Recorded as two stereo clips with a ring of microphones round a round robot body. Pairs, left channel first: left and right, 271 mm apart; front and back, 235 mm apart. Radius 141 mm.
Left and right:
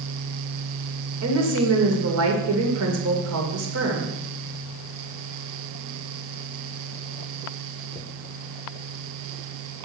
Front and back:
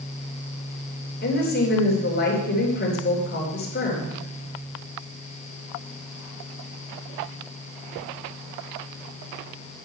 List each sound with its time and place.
1.2 s a woman speaking: 55° right, 2.5 m